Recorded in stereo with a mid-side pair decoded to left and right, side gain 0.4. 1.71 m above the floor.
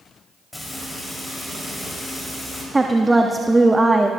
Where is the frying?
15° left, 4 m.